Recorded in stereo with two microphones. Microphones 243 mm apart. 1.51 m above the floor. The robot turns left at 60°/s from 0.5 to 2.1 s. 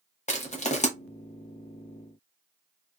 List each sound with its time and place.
0.3 s crushing: 30° left (ahead or behind), 0.8 m